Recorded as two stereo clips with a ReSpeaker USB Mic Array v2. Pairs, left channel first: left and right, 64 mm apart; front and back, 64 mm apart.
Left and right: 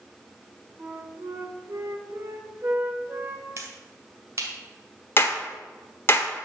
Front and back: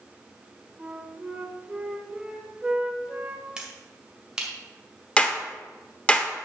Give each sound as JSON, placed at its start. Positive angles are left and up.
{"t": 0.8, "sound": "a flute", "azimuth_deg": -115, "distance_m": 1.4}
{"t": 3.6, "sound": "a finger snap", "azimuth_deg": -105, "distance_m": 2.0}
{"t": 5.2, "sound": "a clap", "azimuth_deg": 60, "distance_m": 1.1}